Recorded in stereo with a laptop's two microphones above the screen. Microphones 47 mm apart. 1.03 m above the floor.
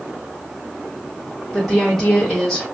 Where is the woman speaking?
5° left (ahead or behind), 1.4 m.